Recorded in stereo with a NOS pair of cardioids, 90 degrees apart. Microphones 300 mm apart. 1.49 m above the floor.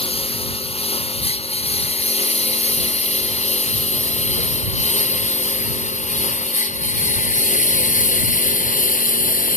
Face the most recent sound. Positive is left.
turn(degrees=25)